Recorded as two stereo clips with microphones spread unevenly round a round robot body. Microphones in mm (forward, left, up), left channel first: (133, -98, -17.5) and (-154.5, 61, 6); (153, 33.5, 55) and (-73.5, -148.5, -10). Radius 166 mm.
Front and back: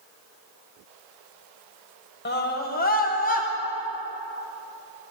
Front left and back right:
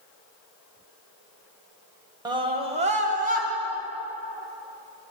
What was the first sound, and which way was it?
A scream, 80° right.